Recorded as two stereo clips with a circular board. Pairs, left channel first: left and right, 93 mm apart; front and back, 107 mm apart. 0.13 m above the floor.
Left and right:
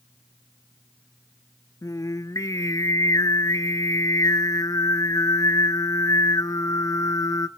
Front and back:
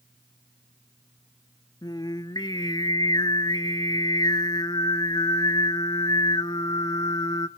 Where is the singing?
40° left, 0.5 m.